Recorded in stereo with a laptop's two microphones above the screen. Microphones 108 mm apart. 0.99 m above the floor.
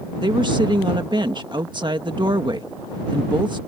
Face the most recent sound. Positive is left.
turn(degrees=-45)  # may be behind; listen again after turning